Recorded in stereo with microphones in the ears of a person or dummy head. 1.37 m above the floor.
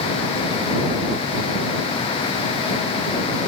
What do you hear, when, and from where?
Only background noise.